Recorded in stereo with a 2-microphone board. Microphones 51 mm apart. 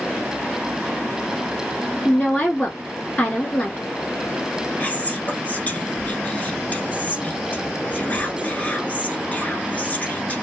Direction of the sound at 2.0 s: 25° left (ahead or behind).